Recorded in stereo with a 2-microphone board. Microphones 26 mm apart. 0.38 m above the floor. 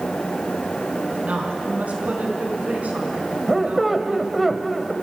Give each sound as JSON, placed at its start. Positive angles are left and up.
{"t": 1.1, "sound": "a woman speaking", "side_deg": -70, "distance_m": 4.0}
{"t": 3.5, "sound": "a squeak", "side_deg": -5, "distance_m": 1.2}